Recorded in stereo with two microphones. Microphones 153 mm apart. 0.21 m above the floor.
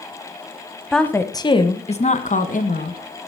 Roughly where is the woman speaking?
Centre.